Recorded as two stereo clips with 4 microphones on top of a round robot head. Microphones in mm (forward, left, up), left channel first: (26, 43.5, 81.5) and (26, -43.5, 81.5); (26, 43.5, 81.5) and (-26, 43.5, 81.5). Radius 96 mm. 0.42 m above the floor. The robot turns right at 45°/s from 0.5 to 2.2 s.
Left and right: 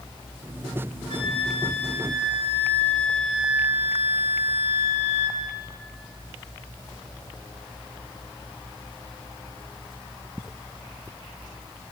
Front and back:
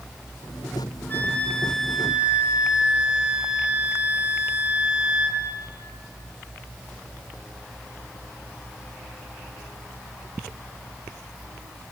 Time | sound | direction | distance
1.1 | a flute | 60° left | 3 m